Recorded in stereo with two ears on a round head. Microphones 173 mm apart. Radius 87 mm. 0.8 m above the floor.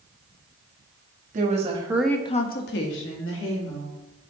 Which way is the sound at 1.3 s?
40° right (ahead or behind).